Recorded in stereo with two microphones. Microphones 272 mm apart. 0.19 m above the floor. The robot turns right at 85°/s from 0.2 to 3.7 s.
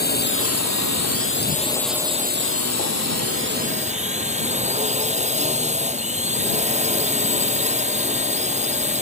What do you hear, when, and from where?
0.0 s a drone: 35° left; by 9.0 s 25° right